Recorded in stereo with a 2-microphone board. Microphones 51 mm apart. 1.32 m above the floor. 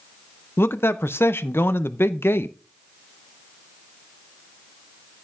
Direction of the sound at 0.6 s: 55° left (ahead or behind).